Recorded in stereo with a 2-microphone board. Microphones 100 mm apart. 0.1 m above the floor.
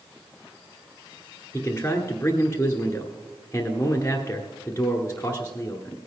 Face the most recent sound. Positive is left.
turn(degrees=25)  # may be behind; listen again after turning